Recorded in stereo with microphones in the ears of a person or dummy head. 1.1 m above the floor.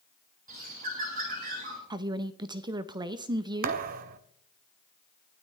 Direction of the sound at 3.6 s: 45° right (ahead or behind).